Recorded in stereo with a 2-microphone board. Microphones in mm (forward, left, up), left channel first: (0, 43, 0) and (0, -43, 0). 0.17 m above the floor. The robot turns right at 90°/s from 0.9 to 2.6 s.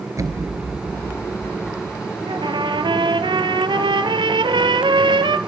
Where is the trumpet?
70° right (ahead or behind), 1.1 m.